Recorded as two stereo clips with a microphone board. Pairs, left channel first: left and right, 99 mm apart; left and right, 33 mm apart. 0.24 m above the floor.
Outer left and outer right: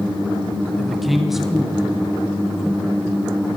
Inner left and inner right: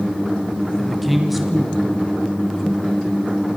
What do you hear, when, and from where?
0.8 s a man speaking: centre (ahead or behind), 1.7 m; by 3.0 s 10° right (ahead or behind), 3.5 m